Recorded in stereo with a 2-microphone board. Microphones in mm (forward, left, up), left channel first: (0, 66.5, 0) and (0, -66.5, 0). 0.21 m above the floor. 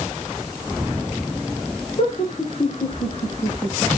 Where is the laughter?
50° left (ahead or behind), 4.5 m; by 3.9 s 25° left (ahead or behind), 4 m.